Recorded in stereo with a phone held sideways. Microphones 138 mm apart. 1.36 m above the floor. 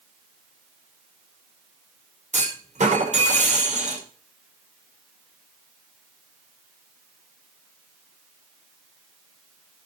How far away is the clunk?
About 5 m.